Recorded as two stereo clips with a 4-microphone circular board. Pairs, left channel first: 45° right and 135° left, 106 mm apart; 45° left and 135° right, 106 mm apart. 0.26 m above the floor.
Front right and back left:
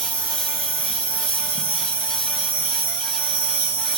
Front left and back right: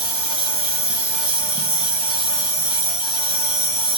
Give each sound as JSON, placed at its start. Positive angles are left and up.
{"t": 0.0, "sound": "an insect", "azimuth_deg": 35, "distance_m": 0.8}